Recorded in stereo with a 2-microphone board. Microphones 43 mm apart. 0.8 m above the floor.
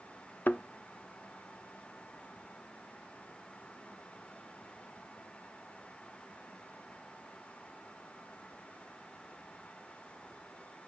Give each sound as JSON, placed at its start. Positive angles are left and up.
{"t": 0.5, "sound": "a thud", "side_deg": 45, "distance_m": 0.5}